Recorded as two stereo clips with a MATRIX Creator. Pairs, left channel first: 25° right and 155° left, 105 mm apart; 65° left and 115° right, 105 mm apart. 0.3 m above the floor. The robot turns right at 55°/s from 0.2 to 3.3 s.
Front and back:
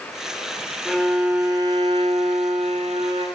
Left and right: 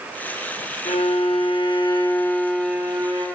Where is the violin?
60° left, 6.5 m; by 3.2 s 165° right, 6.5 m.